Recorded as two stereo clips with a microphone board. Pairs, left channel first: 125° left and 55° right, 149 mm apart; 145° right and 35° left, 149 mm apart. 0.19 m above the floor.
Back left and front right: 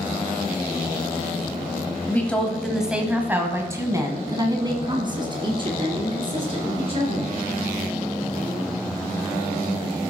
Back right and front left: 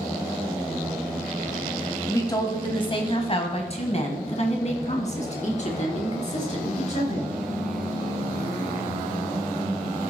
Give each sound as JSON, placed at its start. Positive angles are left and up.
{"t": 2.1, "sound": "a woman speaking", "azimuth_deg": 180, "distance_m": 1.2}